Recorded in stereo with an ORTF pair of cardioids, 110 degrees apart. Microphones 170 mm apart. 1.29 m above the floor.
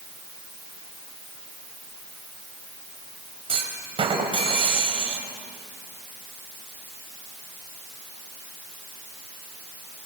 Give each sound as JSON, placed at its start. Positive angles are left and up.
{"t": 3.5, "sound": "a clunk", "azimuth_deg": -35, "distance_m": 4.5}